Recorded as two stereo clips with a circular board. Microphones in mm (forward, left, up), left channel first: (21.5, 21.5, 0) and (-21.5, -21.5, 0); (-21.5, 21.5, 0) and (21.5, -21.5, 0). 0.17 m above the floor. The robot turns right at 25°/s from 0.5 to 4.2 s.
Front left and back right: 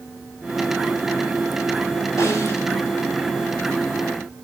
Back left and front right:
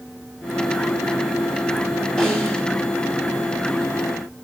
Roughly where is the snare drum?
Ahead left.